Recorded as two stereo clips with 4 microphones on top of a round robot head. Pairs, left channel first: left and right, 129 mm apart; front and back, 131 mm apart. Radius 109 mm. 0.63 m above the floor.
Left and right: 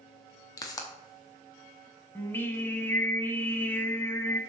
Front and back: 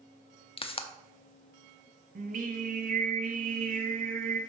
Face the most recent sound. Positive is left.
turn(degrees=165)